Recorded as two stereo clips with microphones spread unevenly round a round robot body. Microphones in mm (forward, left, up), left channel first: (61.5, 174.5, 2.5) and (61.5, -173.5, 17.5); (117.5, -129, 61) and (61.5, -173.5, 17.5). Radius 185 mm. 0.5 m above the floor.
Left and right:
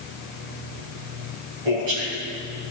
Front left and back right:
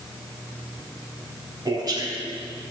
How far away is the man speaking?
About 4 m.